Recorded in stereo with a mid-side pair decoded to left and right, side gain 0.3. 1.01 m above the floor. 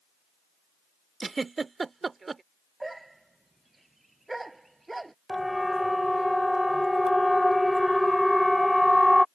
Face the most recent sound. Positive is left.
turn(degrees=10)